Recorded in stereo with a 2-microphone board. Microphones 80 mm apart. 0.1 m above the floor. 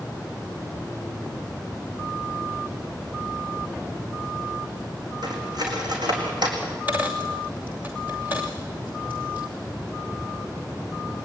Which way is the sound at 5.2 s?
65° right (ahead or behind).